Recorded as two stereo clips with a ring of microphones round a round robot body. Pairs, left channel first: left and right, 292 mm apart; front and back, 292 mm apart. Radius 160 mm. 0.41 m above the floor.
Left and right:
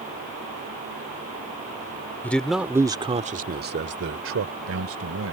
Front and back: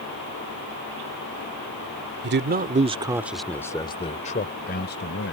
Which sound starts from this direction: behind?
A man speaking, at 2.2 s.